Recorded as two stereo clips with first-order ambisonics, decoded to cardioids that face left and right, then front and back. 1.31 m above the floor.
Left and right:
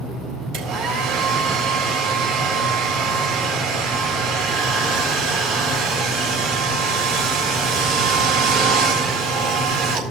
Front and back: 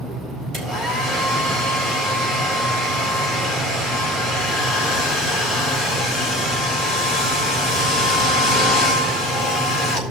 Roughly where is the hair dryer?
Behind right.